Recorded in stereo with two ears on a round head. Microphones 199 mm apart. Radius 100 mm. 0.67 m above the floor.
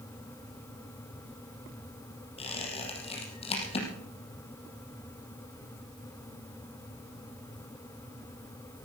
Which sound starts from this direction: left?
A squeak, at 2.4 s.